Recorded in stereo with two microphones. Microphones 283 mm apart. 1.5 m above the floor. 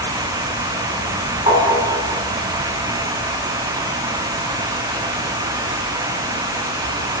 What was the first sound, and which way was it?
Tapping, 20° right (ahead or behind).